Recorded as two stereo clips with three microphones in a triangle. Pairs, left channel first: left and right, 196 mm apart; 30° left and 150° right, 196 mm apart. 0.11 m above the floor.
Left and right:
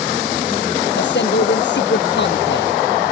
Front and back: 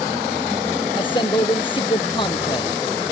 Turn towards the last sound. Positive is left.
turn(degrees=90)